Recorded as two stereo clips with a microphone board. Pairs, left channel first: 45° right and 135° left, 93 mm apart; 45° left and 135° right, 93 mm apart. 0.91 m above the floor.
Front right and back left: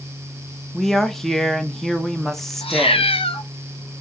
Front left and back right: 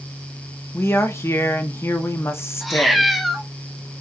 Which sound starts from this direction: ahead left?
A woman speaking, at 0.7 s.